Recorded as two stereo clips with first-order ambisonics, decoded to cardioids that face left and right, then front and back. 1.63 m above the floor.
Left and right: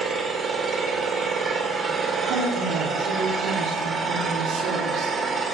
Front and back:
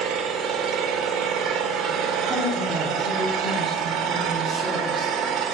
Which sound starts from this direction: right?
A woman speaking, at 2.3 s.